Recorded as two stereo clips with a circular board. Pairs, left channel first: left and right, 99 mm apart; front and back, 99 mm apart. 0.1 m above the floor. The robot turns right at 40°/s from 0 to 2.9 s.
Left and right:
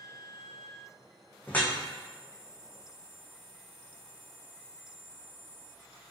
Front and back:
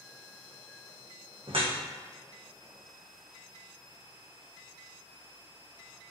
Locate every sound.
1.5 s dripping: 160° left, 1.0 m; by 1.8 s 170° left, 1.0 m